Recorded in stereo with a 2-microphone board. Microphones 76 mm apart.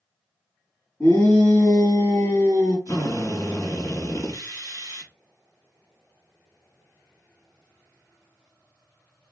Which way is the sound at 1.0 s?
30° left (ahead or behind).